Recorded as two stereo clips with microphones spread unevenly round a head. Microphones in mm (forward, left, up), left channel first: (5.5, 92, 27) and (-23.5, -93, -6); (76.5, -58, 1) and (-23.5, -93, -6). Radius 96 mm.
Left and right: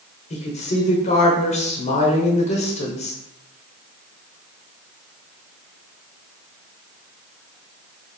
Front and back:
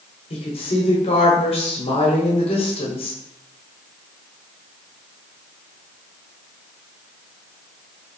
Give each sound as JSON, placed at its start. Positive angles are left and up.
{"t": 0.3, "sound": "a woman speaking", "azimuth_deg": 25, "distance_m": 1.0}